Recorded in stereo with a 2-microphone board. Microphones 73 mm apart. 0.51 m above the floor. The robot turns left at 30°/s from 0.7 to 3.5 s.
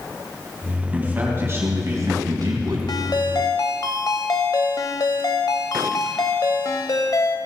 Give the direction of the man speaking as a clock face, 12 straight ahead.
1 o'clock.